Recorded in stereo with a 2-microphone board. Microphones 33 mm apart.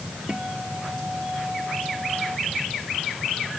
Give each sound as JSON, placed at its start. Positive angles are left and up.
{"t": 0.3, "sound": "a guitar", "side_deg": -25}